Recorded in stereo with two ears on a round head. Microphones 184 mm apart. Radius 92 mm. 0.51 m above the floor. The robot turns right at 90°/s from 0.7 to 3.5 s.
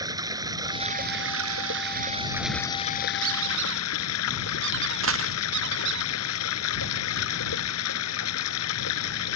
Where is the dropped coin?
70° right (ahead or behind).